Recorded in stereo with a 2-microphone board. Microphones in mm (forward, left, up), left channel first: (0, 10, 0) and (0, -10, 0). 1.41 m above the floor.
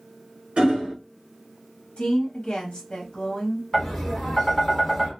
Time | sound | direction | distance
0.6 | hammering | 65° right (ahead or behind) | 1.0 m
2.0 | a woman speaking | 60° left (ahead or behind) | 0.9 m
3.7 | tapping | 15° left (ahead or behind) | 1.0 m